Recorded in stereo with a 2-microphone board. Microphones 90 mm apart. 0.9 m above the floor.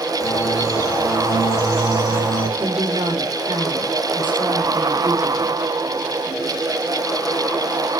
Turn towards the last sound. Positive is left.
turn(degrees=-75)  # may be behind; listen again after turning